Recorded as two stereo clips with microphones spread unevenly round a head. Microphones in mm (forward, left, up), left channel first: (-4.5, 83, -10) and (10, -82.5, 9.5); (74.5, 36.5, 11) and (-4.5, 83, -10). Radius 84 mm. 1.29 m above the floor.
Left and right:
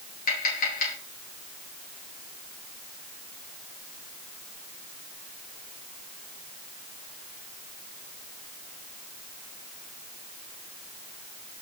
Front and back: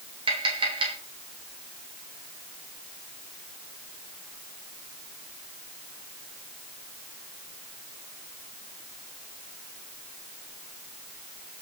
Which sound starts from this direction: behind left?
Tapping, at 0.3 s.